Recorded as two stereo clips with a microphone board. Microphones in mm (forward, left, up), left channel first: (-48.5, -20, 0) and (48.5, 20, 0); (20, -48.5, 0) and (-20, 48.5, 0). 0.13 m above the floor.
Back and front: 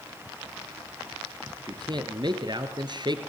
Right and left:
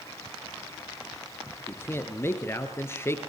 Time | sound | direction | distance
1.7 | a man speaking | 5° right | 2 m